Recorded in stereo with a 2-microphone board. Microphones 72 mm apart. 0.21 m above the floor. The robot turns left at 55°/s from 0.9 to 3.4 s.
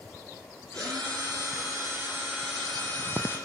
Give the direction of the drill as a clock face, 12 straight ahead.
3 o'clock.